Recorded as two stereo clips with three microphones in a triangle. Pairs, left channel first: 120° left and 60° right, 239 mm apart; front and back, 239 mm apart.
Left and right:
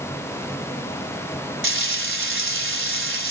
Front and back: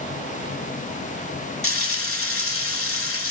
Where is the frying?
25° right, 1.5 m.